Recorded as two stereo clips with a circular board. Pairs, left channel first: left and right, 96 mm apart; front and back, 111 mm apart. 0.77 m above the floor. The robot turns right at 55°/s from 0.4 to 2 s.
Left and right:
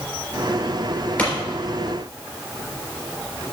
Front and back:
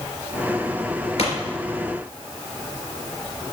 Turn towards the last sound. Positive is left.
turn(degrees=65)